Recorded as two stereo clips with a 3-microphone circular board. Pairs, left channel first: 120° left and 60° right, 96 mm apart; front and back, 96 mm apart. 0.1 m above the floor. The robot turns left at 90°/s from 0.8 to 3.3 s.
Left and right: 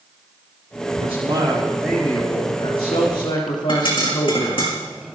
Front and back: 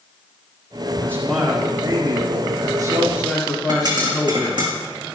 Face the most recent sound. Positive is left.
turn(degrees=140)